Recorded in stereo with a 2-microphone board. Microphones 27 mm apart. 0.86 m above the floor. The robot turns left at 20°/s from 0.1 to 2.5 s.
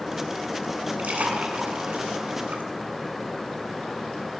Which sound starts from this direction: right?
A splash, at 1.0 s.